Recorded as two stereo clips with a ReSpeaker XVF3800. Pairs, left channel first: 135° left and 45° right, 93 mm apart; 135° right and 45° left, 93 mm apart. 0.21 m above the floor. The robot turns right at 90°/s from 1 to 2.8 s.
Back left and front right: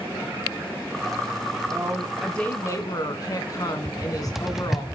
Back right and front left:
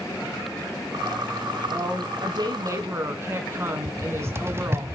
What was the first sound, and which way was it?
A woman speaking, straight ahead.